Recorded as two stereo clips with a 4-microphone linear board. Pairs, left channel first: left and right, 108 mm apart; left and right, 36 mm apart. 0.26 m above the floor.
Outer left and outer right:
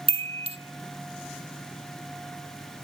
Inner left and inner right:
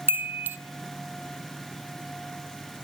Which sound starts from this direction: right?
A chime, at 0.1 s.